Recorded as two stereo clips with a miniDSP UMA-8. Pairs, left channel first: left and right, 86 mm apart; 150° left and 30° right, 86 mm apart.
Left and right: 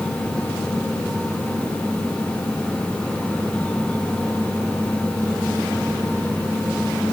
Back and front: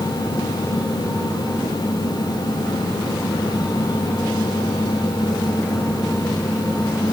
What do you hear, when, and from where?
Only background noise.